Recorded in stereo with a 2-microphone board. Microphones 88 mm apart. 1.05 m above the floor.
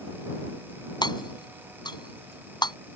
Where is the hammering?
60° left (ahead or behind).